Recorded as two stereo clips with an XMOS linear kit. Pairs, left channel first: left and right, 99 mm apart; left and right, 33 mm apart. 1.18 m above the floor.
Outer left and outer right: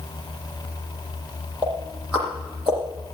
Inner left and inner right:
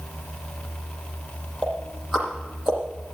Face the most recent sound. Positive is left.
turn(degrees=-10)  # may be behind; listen again after turning